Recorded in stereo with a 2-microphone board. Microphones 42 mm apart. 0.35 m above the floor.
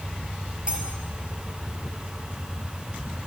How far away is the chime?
I don't hear a chime.